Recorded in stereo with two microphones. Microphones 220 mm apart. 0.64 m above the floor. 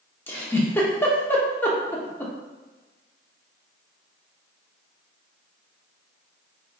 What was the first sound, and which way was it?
A giggle, 10° left (ahead or behind).